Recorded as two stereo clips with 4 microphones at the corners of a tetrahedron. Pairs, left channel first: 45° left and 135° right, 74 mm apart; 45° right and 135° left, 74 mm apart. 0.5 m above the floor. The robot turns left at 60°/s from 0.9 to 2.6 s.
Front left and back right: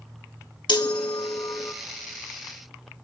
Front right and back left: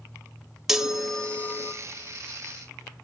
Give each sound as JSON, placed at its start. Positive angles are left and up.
{"t": 0.7, "sound": "a chime", "azimuth_deg": 50, "distance_m": 0.7}